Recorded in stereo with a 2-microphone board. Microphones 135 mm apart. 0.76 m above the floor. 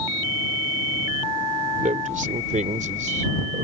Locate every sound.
1.8 s a man speaking: 75° right (ahead or behind); by 3.6 s 70° right (ahead or behind)